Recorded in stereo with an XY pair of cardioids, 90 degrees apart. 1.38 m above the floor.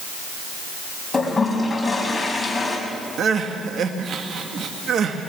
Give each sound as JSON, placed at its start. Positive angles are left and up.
{"t": 1.1, "sound": "a toilet flushing", "azimuth_deg": 25, "distance_m": 5.5}
{"t": 3.2, "sound": "crying", "azimuth_deg": -65, "distance_m": 1.8}